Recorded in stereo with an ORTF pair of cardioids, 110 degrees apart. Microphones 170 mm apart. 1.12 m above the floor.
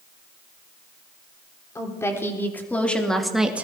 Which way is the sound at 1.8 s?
15° left.